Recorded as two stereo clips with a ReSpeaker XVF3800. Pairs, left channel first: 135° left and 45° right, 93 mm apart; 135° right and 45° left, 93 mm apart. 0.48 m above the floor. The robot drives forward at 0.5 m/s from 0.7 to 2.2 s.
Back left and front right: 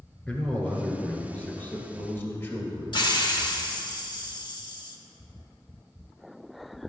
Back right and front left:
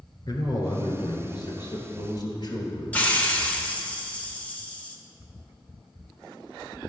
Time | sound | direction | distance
0.3 | a man speaking | 155° right | 1.5 m
2.9 | a hiss | 155° left | 0.8 m